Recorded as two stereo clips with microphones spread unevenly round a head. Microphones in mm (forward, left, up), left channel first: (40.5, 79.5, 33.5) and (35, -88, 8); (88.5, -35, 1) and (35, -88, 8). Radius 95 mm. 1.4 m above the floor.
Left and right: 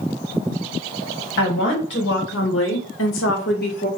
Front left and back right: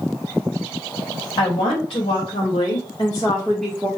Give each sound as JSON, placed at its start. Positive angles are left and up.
{"t": 1.4, "sound": "a woman speaking", "azimuth_deg": 60, "distance_m": 1.5}